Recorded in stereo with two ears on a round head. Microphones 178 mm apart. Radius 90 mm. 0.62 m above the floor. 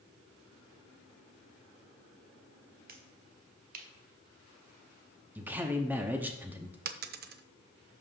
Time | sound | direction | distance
2.9 | a finger snap | 45° right (ahead or behind) | 0.8 m
5.3 | a man speaking | 10° right (ahead or behind) | 0.8 m
6.8 | a dropped coin | 50° right (ahead or behind) | 0.6 m